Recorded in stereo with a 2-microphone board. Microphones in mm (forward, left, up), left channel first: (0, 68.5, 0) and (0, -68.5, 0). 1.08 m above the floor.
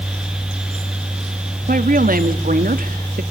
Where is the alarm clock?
I don't hear an alarm clock.